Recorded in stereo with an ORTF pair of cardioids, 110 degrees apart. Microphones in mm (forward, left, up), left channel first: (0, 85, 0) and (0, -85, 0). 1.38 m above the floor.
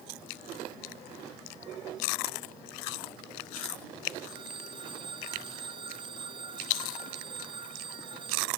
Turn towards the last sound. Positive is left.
turn(degrees=-30)